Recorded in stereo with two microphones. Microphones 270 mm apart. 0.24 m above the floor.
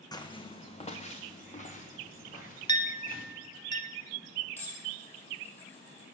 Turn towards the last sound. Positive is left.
turn(degrees=5)  # may be behind; listen again after turning